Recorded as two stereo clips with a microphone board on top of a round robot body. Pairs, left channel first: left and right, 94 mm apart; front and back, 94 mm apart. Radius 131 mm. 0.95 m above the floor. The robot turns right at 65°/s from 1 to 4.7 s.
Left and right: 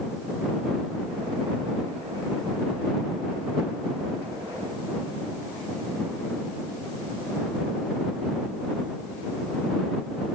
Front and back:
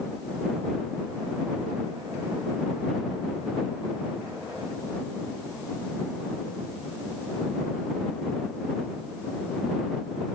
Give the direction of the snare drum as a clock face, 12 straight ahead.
No snare drum in this recording.